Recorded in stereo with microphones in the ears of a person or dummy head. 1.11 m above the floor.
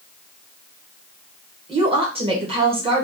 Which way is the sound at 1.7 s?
30° right (ahead or behind).